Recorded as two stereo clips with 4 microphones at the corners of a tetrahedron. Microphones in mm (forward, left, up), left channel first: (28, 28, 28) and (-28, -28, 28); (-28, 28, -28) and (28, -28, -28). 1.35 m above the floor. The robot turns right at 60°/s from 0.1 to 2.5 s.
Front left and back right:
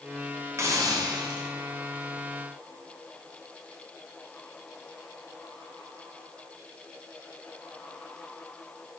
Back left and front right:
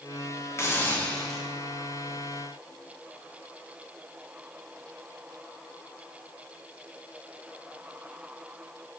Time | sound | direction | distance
0.6 | a hiss | straight behind | 0.5 m